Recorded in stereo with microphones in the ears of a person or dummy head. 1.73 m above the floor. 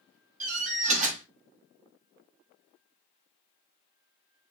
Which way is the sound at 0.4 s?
40° right (ahead or behind).